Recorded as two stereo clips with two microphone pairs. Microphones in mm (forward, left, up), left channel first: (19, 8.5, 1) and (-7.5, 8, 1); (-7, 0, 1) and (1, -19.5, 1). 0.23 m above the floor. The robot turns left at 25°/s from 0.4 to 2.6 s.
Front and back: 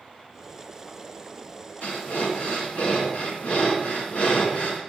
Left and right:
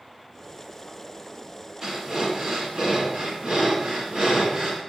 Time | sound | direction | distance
1.8 | breathing | 5° right | 2.0 m